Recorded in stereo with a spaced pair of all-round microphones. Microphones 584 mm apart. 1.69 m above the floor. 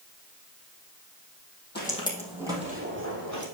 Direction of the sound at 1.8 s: 15° left (ahead or behind).